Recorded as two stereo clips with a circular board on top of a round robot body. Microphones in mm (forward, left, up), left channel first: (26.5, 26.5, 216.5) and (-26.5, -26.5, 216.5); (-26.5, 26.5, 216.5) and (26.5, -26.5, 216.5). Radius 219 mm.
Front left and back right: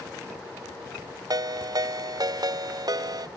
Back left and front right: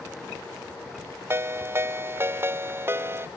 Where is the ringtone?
105° right.